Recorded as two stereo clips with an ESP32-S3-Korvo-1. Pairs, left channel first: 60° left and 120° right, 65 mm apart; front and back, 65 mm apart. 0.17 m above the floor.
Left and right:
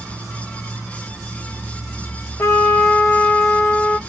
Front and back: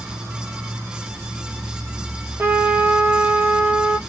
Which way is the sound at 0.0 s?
135° left.